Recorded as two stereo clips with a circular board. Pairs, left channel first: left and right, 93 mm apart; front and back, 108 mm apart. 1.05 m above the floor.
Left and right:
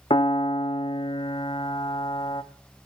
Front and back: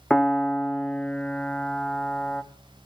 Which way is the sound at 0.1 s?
80° left.